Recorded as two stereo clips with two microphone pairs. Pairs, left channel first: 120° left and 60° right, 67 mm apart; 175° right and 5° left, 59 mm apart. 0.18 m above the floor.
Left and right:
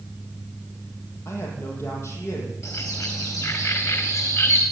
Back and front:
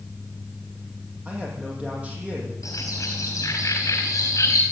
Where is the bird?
155° left, 4.5 m.